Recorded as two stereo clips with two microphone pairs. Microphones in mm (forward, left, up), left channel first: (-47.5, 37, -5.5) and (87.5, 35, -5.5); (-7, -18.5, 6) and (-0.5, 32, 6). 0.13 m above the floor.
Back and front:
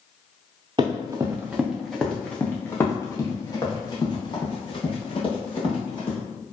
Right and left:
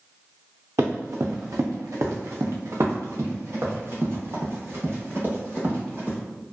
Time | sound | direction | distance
0.8 | running footsteps | 55° left | 1.0 m